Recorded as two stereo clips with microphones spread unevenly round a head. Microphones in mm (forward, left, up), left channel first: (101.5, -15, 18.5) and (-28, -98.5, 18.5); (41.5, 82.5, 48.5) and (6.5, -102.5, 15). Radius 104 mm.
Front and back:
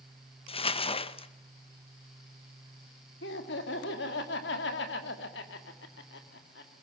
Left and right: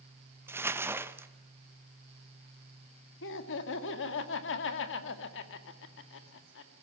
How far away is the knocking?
No knocking in this recording.